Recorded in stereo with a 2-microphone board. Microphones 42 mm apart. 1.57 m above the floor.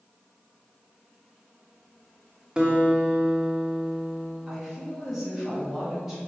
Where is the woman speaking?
10° right (ahead or behind), 2.5 m.